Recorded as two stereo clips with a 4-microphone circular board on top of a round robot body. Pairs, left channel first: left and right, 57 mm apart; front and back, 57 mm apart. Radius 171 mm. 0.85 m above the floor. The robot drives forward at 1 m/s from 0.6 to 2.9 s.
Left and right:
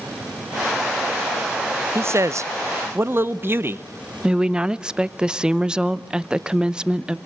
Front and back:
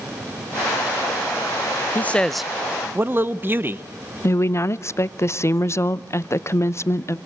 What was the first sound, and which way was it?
A man speaking, 55° right.